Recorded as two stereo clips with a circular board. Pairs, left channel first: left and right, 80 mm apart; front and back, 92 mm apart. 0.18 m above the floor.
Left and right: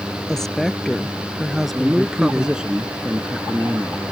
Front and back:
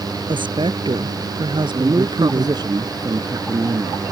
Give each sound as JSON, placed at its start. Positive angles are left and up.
{"t": 0.3, "sound": "a woman speaking", "azimuth_deg": 175}
{"t": 1.7, "sound": "a man speaking", "azimuth_deg": -165}